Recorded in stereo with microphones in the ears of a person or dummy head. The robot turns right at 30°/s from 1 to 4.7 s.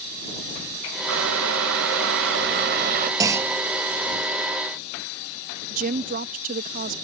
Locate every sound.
1.1 s boiling: 110° right; by 3.1 s 50° right
3.2 s a clunk: 20° right (ahead or behind); by 3.6 s 10° right (ahead or behind)
5.7 s a woman speaking: 50° right (ahead or behind)